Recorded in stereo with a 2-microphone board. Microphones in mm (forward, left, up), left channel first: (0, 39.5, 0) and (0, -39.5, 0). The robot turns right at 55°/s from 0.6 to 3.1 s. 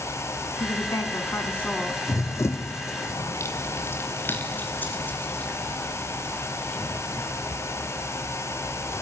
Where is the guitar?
I don't hear a guitar.